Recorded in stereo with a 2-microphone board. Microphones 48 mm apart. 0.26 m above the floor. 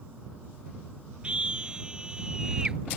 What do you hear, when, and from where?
1.2 s a scream: 25° right (ahead or behind); by 2.8 s 15° right (ahead or behind)